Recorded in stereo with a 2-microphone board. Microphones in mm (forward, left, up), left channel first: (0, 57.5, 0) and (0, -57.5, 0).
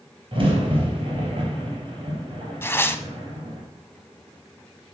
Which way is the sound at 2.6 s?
20° left (ahead or behind).